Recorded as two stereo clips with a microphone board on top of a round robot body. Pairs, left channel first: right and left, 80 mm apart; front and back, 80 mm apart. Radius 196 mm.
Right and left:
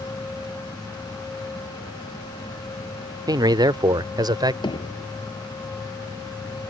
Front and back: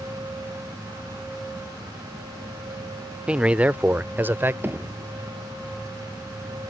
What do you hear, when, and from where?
3.3 s a man speaking: 105° left; by 4.5 s 120° left
4.6 s hammering: 115° right